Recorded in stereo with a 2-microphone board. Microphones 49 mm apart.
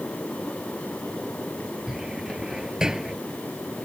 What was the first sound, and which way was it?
A cupboard door, 15° right (ahead or behind).